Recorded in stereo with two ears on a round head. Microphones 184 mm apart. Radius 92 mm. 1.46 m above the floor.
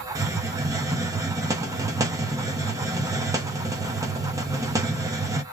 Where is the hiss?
15° right (ahead or behind), 0.7 m.